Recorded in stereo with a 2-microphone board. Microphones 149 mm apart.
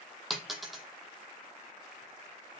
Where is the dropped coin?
Centre (ahead or behind), 0.7 m.